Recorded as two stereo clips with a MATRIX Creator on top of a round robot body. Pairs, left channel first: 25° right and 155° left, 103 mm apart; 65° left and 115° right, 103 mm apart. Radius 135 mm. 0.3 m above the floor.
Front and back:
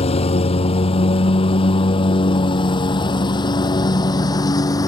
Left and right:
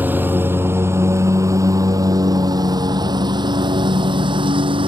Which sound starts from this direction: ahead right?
A lawn mower, at 0.0 s.